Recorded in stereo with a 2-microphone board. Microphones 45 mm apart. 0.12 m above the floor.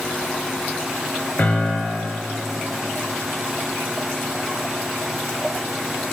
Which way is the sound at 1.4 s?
35° left (ahead or behind).